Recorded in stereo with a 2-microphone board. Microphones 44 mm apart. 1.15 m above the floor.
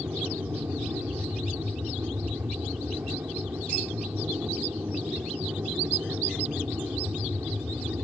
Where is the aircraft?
65° right (ahead or behind).